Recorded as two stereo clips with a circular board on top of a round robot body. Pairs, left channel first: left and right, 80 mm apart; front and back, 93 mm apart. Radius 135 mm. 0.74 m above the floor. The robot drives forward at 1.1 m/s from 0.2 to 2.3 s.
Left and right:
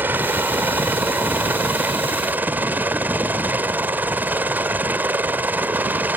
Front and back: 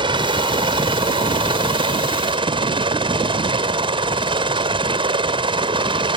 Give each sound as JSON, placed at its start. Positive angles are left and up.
{"t": 0.0, "sound": "a helicopter", "azimuth_deg": -155}